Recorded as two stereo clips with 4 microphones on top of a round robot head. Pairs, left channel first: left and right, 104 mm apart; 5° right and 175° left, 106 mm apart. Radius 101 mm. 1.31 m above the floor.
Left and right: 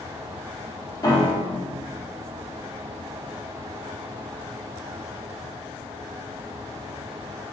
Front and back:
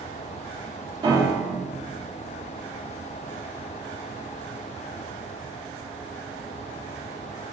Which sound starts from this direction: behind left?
A piano, at 1.0 s.